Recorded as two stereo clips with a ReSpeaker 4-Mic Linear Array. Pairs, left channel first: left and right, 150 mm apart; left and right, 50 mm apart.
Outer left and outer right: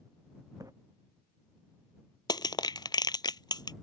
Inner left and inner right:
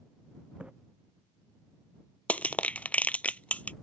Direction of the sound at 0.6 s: 20° right (ahead or behind).